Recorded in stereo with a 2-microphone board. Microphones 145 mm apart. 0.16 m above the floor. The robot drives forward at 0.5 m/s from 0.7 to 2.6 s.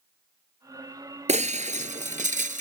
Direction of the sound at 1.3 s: 55° right (ahead or behind).